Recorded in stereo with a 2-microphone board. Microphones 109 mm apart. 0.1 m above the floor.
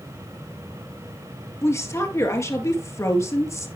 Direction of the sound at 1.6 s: 30° left (ahead or behind).